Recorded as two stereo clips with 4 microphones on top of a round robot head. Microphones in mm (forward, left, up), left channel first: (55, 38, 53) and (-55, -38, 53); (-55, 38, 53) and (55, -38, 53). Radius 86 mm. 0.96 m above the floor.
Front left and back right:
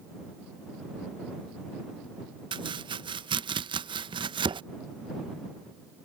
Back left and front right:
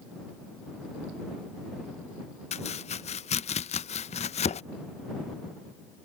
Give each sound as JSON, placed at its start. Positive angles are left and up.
{"t": 2.5, "sound": "chopping", "azimuth_deg": 170}